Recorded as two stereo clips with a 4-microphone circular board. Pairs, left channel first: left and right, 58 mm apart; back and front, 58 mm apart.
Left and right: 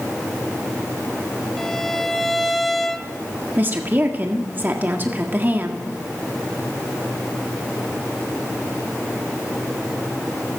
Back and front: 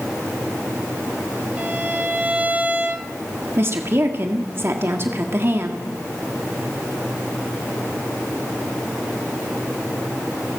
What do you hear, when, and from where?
1.6 s a violin: 15° left, 1.0 m
3.6 s a woman speaking: 40° right, 1.7 m